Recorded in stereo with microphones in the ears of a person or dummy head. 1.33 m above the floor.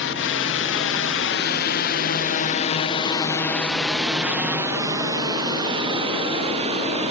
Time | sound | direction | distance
0.0 | a drone | 60° left (ahead or behind) | ?